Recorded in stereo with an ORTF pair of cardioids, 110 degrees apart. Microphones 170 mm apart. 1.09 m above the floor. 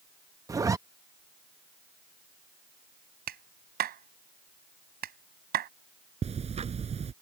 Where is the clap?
60° right.